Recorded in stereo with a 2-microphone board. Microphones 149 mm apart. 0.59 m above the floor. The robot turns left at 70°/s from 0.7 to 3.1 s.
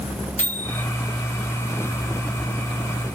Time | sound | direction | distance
0.4 | a microwave | 55° left (ahead or behind) | 1.2 m